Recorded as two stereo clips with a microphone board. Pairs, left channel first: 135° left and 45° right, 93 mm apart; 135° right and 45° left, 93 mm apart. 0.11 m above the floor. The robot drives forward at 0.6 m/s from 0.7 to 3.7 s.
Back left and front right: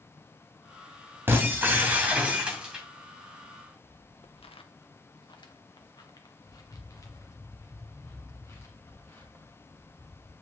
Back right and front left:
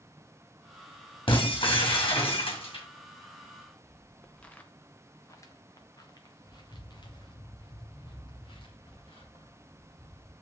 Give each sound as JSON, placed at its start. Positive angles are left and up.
{"t": 1.3, "sound": "breaking glass", "azimuth_deg": -110, "distance_m": 2.5}
{"t": 3.4, "sound": "footsteps", "azimuth_deg": 105, "distance_m": 0.9}